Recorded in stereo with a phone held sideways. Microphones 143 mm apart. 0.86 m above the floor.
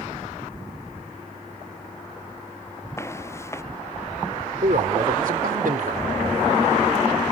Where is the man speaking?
75° right (ahead or behind).